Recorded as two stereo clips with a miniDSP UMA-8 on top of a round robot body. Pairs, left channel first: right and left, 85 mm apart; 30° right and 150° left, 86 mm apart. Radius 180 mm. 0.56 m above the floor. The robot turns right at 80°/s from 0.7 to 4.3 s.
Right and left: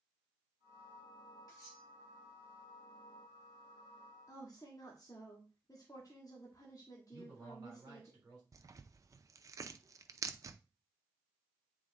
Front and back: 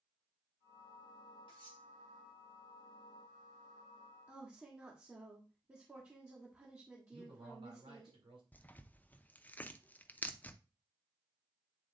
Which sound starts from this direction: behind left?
A man speaking, at 7.1 s.